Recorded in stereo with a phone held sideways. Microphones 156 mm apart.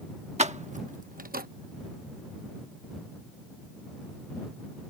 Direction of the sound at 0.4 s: 45° right (ahead or behind).